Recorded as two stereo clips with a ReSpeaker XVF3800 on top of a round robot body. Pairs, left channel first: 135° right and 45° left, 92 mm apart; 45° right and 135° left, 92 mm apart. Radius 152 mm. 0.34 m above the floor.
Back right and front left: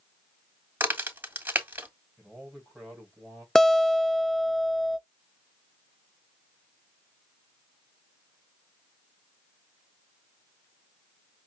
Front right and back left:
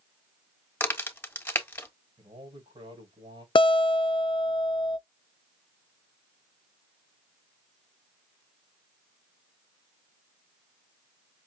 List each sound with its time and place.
0.8 s a crack: 5° right, 1.6 m
2.2 s a man speaking: 135° left, 3.5 m
3.5 s a guitar: 50° right, 0.5 m